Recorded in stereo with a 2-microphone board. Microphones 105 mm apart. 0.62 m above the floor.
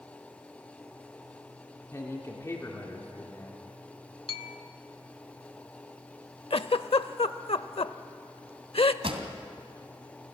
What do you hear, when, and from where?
1.9 s a man speaking: 30° left (ahead or behind), 2.0 m
4.3 s a bell: 65° left (ahead or behind), 1.0 m
6.5 s a giggle: 70° left (ahead or behind), 0.6 m
9.0 s a pop: 65° right (ahead or behind), 2 m